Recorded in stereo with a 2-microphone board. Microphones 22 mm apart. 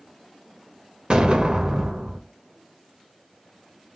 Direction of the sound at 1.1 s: 40° right (ahead or behind).